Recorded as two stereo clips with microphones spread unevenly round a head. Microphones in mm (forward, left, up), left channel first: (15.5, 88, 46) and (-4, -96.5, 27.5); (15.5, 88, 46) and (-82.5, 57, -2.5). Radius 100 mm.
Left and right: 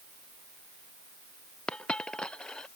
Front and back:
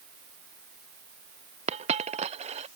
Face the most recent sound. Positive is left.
turn(degrees=170)